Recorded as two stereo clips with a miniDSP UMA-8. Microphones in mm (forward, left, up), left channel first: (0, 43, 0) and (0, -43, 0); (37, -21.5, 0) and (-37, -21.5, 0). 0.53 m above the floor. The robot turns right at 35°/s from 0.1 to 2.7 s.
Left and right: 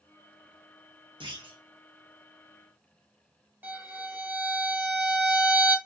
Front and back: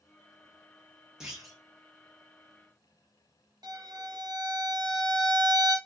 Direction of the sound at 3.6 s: 160° right.